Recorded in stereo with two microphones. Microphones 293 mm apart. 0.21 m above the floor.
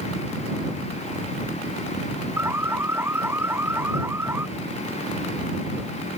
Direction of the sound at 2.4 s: 10° right (ahead or behind).